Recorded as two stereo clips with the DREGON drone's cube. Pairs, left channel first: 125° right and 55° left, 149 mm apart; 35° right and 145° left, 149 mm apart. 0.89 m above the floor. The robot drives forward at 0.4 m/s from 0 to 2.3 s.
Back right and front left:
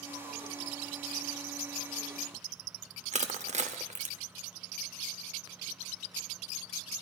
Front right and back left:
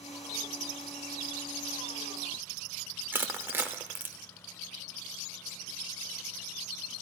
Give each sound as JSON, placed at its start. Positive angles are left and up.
{"t": 3.1, "sound": "crushing", "azimuth_deg": 75, "distance_m": 0.7}